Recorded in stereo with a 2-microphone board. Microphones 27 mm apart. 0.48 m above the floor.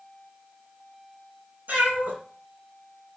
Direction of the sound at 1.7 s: 70° right (ahead or behind).